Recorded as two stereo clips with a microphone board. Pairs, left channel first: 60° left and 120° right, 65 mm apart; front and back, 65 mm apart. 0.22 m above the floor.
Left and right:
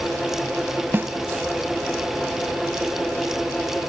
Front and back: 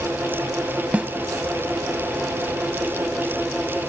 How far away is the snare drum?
About 0.7 m.